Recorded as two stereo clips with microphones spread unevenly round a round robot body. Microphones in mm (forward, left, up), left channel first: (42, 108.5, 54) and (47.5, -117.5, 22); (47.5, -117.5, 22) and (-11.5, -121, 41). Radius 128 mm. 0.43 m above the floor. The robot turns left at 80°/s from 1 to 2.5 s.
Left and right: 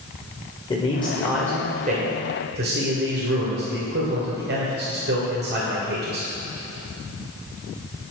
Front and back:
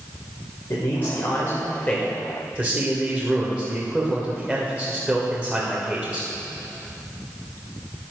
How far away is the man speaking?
About 2.0 m.